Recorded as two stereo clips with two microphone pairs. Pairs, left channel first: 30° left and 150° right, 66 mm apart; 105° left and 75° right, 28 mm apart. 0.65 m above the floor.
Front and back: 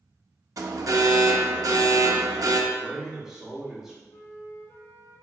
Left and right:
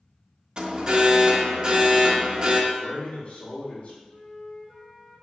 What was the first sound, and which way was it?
An alarm, 130° right.